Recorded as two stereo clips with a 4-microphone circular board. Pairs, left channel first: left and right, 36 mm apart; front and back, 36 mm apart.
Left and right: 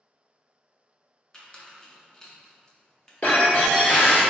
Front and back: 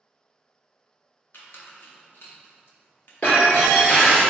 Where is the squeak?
20° left, 0.6 m.